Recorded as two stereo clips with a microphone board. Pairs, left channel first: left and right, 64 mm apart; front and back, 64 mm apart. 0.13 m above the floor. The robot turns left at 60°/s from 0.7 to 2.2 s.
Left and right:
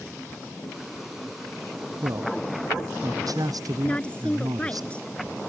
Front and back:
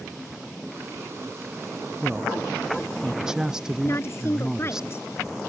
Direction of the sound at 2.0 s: 90° right.